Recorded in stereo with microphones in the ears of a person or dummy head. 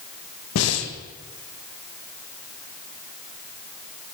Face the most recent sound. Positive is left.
turn(degrees=75)  # may be behind; listen again after turning